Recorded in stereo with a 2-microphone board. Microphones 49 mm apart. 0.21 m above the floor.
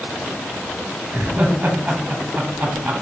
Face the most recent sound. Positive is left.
turn(degrees=-25)  # may be behind; listen again after turning